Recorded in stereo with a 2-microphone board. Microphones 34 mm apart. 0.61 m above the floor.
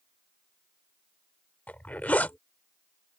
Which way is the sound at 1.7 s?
55° left (ahead or behind).